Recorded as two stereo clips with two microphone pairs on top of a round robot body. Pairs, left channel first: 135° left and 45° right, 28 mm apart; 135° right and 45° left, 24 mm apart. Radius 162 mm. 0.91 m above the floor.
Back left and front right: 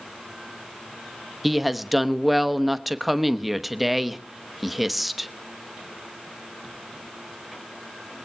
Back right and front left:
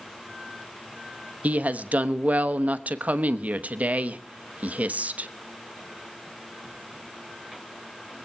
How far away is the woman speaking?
About 1.1 m.